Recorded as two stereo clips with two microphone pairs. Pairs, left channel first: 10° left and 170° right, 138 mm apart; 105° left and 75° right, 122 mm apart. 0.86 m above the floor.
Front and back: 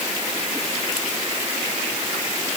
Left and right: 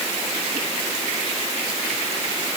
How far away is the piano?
I don't hear a piano.